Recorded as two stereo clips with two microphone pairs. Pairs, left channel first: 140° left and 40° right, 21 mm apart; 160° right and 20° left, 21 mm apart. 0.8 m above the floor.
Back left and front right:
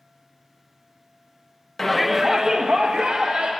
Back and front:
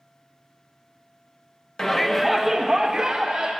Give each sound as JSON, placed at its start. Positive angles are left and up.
{"t": 1.8, "sound": "a shout", "azimuth_deg": 175, "distance_m": 0.8}